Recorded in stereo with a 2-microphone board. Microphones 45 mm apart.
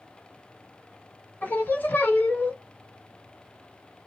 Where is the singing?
45° left (ahead or behind), 0.9 m.